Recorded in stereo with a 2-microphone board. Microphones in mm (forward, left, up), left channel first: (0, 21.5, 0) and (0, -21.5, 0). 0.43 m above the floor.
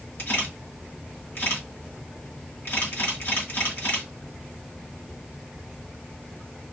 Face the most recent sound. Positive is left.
turn(degrees=55)  # may be behind; listen again after turning